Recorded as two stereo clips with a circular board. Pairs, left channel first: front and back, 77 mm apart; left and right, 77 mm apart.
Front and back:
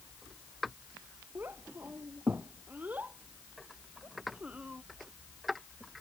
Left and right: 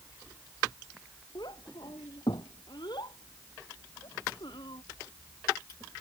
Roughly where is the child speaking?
Behind left.